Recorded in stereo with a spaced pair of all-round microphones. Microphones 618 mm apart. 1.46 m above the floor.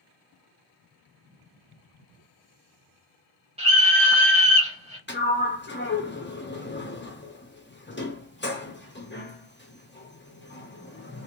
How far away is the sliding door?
About 0.8 m.